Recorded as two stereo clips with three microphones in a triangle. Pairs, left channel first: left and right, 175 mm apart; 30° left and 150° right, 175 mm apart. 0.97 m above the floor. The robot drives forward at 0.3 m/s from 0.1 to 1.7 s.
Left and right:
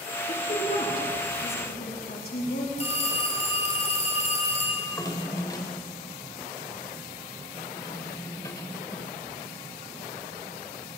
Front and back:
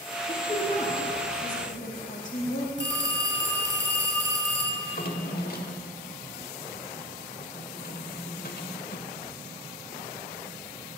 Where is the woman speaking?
60° left, 2.5 m; by 2.7 s 70° left, 2.5 m.